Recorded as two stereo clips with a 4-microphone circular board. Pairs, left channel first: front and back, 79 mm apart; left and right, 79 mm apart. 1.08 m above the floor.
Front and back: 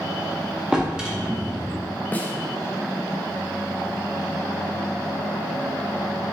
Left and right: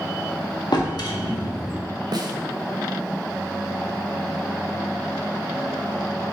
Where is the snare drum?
65° right, 0.5 m.